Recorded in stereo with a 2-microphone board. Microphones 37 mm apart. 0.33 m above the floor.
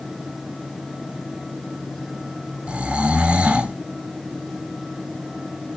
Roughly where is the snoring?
Right.